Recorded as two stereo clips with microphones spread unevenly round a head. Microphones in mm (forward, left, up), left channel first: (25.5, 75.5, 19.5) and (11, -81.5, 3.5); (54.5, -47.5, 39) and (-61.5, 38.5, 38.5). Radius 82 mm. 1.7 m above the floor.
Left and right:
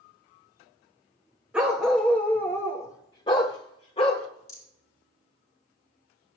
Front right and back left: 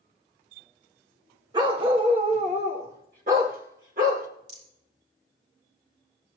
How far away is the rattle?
About 4.5 m.